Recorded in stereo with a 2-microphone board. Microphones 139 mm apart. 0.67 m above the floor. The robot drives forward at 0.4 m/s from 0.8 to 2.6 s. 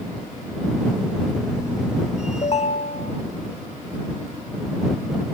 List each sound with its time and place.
2.4 s a ringtone: 50° left (ahead or behind), 1.2 m; by 3.1 s 45° left (ahead or behind), 1.3 m